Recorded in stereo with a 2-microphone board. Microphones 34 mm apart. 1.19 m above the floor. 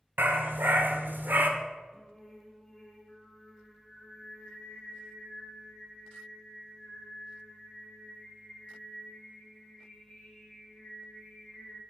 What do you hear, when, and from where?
0.2 s a dog barking: 70° right (ahead or behind), 1.9 m; by 1.5 s 60° right (ahead or behind), 1.5 m
1.9 s singing: 10° left (ahead or behind), 4 m